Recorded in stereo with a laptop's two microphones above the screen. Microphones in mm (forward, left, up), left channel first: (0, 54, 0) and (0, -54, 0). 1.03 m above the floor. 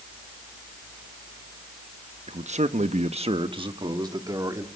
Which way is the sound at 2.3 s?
65° right (ahead or behind).